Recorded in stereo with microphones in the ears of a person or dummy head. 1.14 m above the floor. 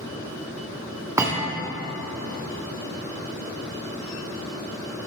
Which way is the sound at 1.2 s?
15° right (ahead or behind).